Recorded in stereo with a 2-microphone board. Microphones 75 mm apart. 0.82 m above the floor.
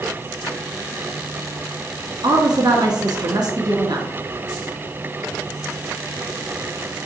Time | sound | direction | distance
2.2 | a woman speaking | 60° right (ahead or behind) | 1.2 m